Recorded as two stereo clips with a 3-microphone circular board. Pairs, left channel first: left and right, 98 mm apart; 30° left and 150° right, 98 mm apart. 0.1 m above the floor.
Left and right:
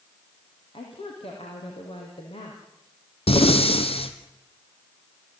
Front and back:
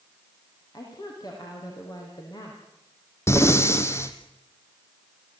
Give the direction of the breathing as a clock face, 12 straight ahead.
9 o'clock.